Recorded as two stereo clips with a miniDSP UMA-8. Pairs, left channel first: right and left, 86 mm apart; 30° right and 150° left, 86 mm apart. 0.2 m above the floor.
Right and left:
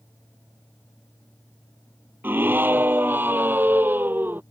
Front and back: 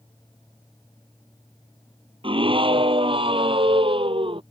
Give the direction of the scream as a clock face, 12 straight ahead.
7 o'clock.